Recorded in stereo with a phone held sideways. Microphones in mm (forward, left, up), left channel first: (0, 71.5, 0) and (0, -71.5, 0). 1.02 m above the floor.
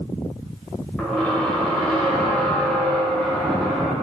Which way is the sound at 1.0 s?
5° left (ahead or behind).